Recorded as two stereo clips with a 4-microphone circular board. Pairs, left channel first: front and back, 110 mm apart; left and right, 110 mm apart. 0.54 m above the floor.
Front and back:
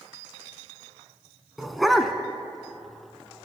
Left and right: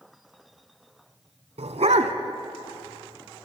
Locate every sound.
1.6 s a dog barking: 90° right, 1.2 m